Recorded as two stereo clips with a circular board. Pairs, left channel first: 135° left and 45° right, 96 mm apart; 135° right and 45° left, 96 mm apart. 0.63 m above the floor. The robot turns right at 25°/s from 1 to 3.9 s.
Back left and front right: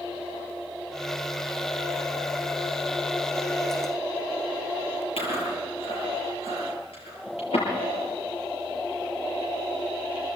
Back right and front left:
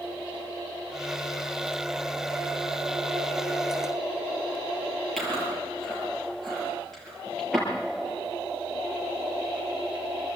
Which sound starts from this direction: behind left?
Chewing, at 5.2 s.